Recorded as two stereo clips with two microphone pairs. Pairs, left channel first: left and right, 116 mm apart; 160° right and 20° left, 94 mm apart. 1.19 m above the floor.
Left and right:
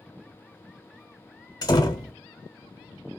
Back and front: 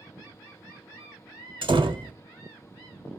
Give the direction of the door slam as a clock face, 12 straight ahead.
11 o'clock.